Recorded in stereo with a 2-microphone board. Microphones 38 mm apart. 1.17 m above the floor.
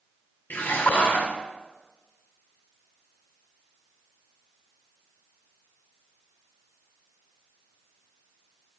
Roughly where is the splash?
Left.